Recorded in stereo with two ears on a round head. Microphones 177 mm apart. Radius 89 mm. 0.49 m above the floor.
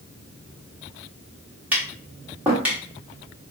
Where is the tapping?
10° right (ahead or behind), 0.9 m.